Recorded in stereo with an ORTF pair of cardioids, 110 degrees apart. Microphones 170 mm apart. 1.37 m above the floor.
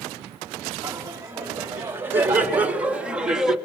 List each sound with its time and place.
0.8 s laughter: 15° right, 4 m; by 3.6 s 5° right, 3 m